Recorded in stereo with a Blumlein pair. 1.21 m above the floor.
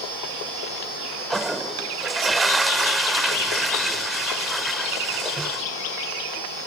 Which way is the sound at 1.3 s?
10° right.